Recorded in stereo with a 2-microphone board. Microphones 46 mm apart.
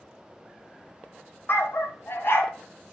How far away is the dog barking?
About 0.9 m.